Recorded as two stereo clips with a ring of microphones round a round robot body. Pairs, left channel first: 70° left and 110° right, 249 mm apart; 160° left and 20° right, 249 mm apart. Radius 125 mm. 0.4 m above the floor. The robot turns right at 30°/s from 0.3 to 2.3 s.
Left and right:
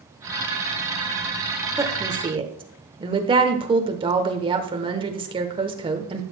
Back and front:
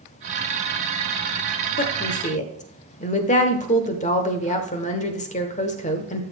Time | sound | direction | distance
1.8 | a woman speaking | 175° left | 1.1 m